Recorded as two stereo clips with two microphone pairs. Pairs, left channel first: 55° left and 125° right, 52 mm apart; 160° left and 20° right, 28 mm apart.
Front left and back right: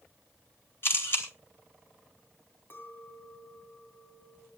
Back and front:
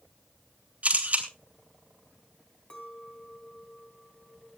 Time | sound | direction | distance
0.8 | a camera shutter | 10° left | 3 m
2.7 | a clink | 100° left | 3.5 m